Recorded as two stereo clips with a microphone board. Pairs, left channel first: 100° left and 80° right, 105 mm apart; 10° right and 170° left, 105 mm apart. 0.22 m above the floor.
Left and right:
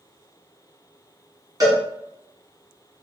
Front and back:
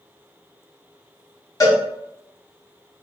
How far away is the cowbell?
About 1.2 m.